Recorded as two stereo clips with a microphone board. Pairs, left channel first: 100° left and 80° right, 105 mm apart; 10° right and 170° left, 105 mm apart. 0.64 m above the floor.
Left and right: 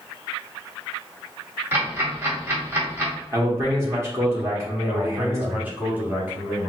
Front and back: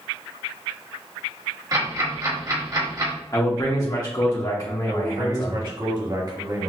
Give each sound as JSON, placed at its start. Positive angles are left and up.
{"t": 1.7, "sound": "ticking", "azimuth_deg": -145, "distance_m": 1.6}
{"t": 3.3, "sound": "a man speaking", "azimuth_deg": -35, "distance_m": 1.1}
{"t": 4.9, "sound": "a man speaking", "azimuth_deg": -150, "distance_m": 1.7}